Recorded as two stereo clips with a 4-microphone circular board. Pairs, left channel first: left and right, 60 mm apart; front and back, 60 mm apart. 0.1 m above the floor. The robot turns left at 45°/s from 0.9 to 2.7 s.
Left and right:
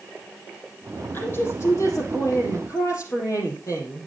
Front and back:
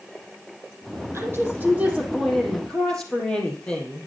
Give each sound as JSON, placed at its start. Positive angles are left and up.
{"t": 1.1, "sound": "a woman speaking", "azimuth_deg": 145, "distance_m": 4.0}